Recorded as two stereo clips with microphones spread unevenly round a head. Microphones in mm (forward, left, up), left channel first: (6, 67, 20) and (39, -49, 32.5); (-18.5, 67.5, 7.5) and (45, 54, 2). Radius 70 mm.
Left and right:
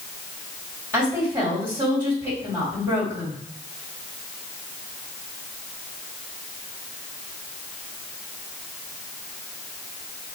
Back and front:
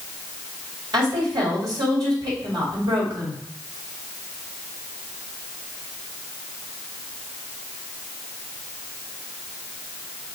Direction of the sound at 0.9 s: Straight ahead.